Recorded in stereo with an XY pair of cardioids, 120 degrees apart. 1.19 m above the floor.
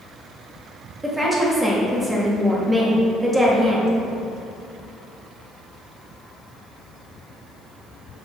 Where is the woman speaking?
15° right, 1.7 m.